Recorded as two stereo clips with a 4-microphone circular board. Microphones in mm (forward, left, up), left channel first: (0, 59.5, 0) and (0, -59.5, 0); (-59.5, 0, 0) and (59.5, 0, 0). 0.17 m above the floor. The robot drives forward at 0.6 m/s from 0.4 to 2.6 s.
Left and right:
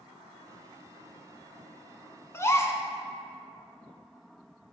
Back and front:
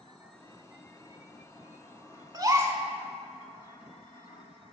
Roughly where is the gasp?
Ahead left.